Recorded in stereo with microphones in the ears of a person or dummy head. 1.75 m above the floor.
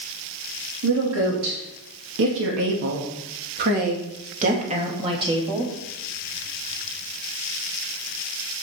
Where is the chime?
I don't hear a chime.